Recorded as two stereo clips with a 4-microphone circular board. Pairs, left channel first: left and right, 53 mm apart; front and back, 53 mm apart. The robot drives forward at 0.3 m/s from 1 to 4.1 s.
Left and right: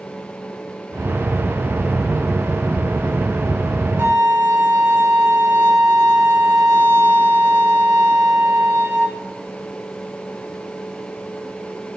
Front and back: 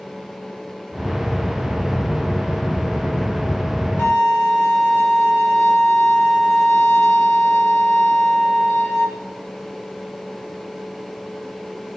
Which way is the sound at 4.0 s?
45° right.